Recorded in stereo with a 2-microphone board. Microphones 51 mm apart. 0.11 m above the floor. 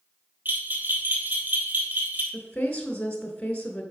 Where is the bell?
40° right (ahead or behind), 2 m.